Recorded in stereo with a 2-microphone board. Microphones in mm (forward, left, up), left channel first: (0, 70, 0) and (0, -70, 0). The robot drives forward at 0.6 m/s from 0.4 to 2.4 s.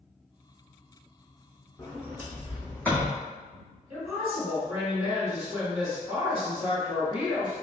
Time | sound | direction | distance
1.8 | a sliding door | 15° left (ahead or behind) | 0.8 m
3.9 | a woman speaking | 10° right (ahead or behind) | 1.7 m